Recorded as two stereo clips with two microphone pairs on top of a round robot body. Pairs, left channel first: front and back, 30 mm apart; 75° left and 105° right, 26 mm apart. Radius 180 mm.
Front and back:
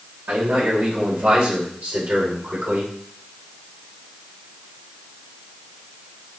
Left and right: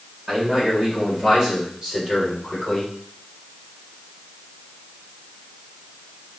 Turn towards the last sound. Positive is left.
turn(degrees=170)